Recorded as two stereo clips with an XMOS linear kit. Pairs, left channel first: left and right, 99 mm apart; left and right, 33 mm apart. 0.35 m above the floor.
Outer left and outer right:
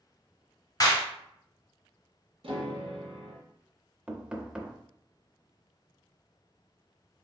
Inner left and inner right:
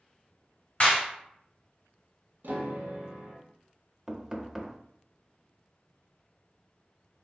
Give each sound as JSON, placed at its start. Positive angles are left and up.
{"t": 0.8, "sound": "a clap", "side_deg": 40, "distance_m": 1.7}
{"t": 2.4, "sound": "a piano", "side_deg": -65, "distance_m": 1.7}
{"t": 4.1, "sound": "knocking", "side_deg": -10, "distance_m": 0.6}